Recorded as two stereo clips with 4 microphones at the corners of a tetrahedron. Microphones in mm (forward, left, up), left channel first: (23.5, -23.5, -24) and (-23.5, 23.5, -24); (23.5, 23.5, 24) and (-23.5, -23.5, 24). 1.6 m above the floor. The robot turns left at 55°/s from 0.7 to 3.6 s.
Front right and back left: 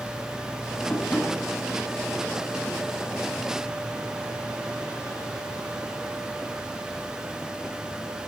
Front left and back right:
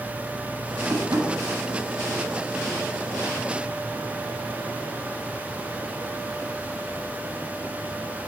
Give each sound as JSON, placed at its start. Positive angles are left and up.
{"t": 0.9, "sound": "tapping", "azimuth_deg": -95, "distance_m": 6.5}